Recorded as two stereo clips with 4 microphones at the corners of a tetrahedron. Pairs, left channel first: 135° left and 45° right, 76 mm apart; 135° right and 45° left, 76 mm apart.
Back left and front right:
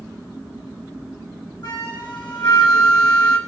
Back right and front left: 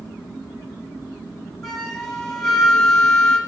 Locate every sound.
1.6 s a flute: 140° left, 2 m